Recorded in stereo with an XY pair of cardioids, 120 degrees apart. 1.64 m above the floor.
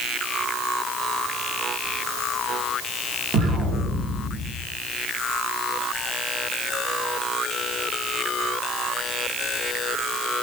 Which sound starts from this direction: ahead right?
An explosion, at 3.3 s.